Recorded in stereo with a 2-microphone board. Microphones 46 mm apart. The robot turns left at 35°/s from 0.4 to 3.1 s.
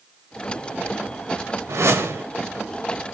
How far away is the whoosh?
About 0.7 m.